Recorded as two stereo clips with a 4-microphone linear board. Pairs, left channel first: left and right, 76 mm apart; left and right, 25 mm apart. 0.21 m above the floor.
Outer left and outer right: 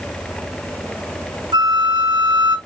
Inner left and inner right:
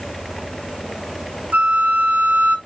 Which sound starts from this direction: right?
A flute, at 1.5 s.